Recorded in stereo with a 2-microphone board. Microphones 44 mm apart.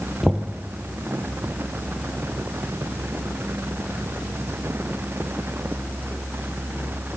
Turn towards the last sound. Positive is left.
turn(degrees=0)  # may be behind; listen again after turning